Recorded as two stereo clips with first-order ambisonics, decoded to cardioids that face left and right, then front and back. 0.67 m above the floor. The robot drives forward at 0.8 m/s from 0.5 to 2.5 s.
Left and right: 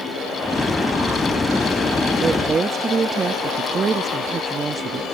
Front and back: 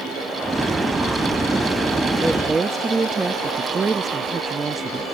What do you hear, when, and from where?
2.2 s a woman speaking: 85° right; by 5.0 s 125° right